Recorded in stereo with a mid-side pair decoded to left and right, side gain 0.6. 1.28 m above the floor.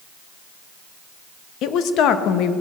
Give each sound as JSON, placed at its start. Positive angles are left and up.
{"t": 1.6, "sound": "a woman speaking", "azimuth_deg": 60, "distance_m": 1.2}